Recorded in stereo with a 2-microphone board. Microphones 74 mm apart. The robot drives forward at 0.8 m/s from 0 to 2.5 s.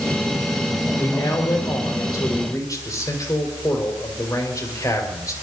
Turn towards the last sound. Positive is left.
turn(degrees=50)  # may be behind; listen again after turning